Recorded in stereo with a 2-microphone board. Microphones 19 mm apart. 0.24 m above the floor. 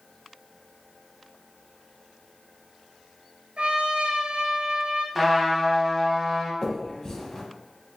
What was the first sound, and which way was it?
A trumpet, 85° right.